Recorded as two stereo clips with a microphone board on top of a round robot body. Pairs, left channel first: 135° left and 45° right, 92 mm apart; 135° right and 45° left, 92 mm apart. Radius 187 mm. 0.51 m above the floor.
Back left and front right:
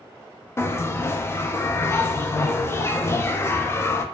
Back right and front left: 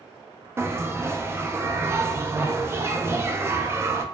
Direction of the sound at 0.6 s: 90° left.